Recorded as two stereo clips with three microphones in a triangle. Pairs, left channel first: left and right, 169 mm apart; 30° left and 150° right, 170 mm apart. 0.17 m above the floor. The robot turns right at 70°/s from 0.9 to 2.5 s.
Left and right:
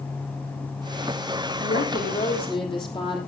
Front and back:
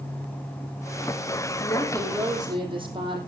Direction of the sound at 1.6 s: 85° left.